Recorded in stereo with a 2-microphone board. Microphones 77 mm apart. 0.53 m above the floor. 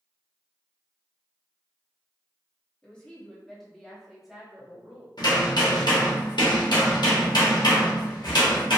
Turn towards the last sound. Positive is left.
turn(degrees=70)  # may be behind; listen again after turning